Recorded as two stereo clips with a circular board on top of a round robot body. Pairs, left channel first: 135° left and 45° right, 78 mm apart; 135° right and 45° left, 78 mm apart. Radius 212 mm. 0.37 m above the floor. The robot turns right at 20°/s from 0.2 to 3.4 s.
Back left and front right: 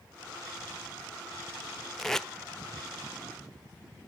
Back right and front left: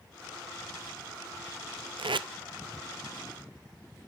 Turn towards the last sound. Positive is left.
turn(degrees=75)